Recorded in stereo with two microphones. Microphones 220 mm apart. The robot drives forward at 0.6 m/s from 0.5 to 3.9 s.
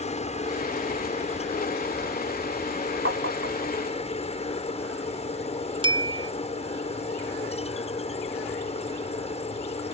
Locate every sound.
0.0 s a helicopter: 30° left (ahead or behind); by 9.9 s 25° left (ahead or behind)
3.0 s tapping: 60° right (ahead or behind); by 3.7 s 70° right (ahead or behind)
5.8 s a bell: 20° right (ahead or behind)